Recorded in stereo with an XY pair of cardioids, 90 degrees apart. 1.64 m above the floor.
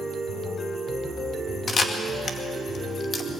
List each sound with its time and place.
1.7 s a camera shutter: 45° left, 2 m